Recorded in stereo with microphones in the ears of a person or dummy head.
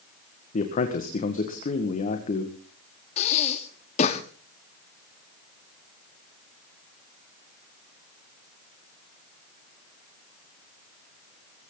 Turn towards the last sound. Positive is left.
turn(degrees=45)  # may be behind; listen again after turning